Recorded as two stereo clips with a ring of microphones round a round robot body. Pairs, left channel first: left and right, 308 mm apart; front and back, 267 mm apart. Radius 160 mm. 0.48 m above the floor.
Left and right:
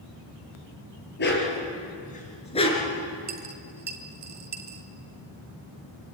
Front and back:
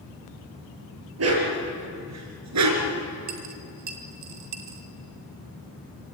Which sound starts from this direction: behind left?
A dog barking, at 1.2 s.